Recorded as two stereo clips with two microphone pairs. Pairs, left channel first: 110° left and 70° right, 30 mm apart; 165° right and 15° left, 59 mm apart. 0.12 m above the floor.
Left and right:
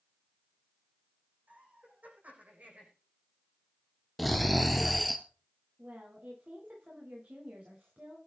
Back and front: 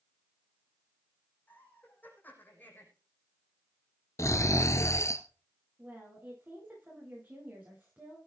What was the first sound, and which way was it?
Laughter, 105° right.